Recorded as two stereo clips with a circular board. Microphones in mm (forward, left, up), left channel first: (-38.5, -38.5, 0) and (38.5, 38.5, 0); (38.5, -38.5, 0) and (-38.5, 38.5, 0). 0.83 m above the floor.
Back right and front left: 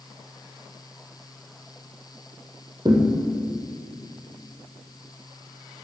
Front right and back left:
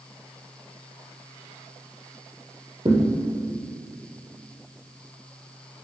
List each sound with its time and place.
2.9 s a thud: 95° left, 3 m